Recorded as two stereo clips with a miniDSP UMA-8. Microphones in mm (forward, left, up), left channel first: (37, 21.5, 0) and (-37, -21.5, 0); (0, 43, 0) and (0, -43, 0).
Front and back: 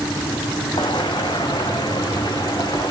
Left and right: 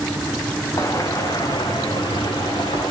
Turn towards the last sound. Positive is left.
turn(degrees=70)